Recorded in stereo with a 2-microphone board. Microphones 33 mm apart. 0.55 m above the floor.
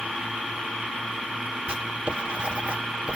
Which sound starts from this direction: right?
Writing, at 1.7 s.